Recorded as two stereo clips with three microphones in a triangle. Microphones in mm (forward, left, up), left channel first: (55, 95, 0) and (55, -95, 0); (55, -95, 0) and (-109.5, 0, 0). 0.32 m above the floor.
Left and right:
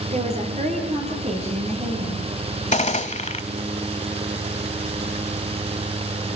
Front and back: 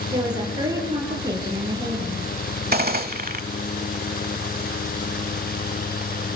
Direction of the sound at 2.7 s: 130° left.